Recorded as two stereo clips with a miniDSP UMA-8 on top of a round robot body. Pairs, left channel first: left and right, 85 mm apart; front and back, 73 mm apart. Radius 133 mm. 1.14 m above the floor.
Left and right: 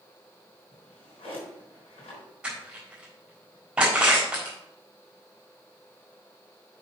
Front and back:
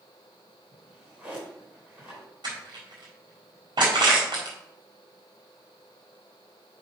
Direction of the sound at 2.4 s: 170° right.